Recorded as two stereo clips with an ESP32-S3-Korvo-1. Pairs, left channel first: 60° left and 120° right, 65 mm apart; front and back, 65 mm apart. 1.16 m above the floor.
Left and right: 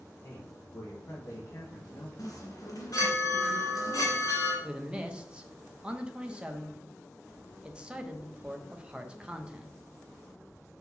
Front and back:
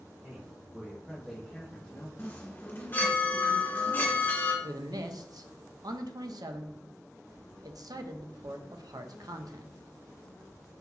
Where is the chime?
55° left, 2 m.